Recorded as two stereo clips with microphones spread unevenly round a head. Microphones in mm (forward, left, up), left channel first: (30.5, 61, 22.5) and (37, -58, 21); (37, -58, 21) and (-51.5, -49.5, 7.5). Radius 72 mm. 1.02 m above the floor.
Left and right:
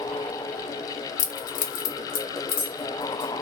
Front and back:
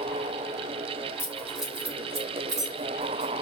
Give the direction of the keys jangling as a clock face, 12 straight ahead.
10 o'clock.